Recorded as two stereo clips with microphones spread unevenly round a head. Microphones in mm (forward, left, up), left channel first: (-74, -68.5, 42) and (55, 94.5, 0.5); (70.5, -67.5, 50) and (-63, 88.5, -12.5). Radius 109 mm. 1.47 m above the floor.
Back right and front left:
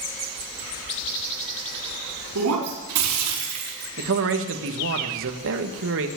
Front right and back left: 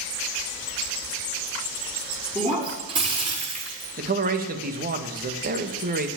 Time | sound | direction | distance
2.4 | breaking glass | 60° left | 5 m
4.0 | a man speaking | 80° left | 1.6 m